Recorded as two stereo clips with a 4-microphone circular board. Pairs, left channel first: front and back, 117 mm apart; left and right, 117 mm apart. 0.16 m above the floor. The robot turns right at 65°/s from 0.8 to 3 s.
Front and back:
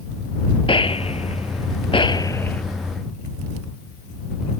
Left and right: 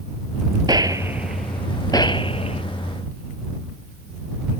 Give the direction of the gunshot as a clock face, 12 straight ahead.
1 o'clock.